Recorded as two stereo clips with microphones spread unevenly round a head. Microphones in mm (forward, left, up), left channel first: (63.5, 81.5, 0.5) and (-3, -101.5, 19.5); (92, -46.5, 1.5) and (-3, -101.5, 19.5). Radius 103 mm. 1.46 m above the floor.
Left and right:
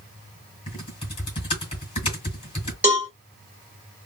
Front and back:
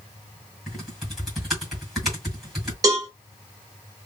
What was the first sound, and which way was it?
Typing on a keyboard, 130° left.